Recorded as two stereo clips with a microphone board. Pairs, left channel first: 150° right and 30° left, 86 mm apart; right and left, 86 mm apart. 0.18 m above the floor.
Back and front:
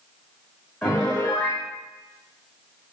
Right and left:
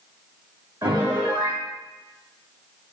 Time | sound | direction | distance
0.8 | a piano | 140° left | 3 m